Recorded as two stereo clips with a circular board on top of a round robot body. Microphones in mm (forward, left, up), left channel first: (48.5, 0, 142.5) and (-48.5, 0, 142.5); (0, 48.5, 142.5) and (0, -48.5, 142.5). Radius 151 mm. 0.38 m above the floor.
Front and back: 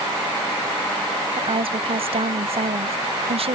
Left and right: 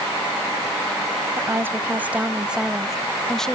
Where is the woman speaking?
155° right; by 3.6 s 175° left.